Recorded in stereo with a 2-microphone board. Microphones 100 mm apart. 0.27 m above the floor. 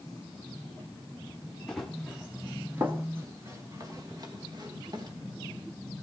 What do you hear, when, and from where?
1.7 s running footsteps: 5° left (ahead or behind), 1.5 m; by 5.1 s 45° right (ahead or behind), 3.5 m